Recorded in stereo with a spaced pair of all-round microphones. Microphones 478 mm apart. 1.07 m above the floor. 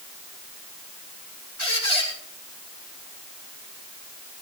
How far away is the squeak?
About 5.5 m.